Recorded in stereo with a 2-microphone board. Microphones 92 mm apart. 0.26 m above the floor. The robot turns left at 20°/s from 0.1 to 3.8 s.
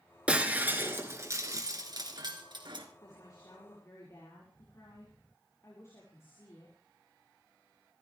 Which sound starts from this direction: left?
A woman speaking, at 3.0 s.